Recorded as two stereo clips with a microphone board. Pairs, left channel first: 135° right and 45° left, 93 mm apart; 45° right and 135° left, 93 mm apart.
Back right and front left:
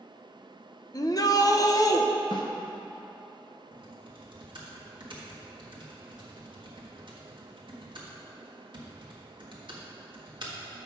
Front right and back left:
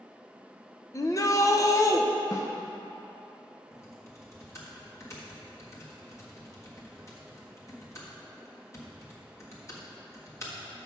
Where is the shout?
95° right, 0.7 m.